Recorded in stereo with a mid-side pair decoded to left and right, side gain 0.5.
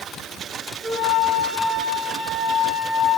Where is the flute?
Straight ahead, 4.5 m.